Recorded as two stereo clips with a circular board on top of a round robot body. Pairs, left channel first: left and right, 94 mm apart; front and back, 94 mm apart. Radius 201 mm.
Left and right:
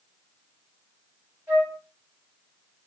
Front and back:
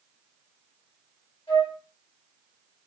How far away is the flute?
About 2.5 m.